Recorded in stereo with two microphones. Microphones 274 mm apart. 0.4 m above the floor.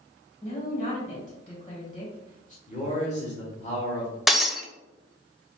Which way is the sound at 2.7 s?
25° left (ahead or behind).